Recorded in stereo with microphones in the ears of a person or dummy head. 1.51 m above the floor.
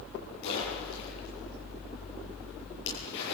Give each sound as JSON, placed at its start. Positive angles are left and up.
{"t": 0.4, "sound": "a splash", "side_deg": 75, "distance_m": 9.5}